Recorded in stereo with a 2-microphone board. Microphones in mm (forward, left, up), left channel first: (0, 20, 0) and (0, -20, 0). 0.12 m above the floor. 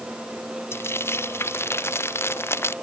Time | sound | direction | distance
0.7 | frying | 80° left | ?